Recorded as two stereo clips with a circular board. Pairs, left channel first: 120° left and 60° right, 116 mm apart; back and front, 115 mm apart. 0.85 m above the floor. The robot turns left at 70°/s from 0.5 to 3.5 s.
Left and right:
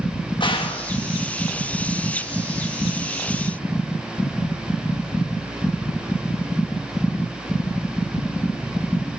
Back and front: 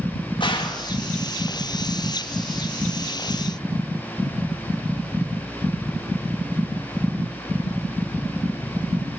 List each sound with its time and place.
0.4 s a gunshot: 150° left, 1.3 m; by 0.9 s 120° left, 1.3 m